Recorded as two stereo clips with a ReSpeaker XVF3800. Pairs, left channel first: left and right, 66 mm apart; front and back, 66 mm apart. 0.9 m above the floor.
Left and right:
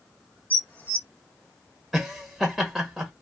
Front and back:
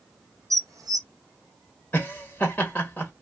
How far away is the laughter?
About 0.9 m.